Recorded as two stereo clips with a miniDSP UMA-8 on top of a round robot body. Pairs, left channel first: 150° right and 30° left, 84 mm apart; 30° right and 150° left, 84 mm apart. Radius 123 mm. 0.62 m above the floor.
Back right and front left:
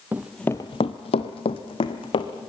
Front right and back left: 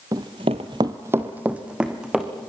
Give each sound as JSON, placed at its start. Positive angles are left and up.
{"t": 0.1, "sound": "running footsteps", "azimuth_deg": 100, "distance_m": 1.0}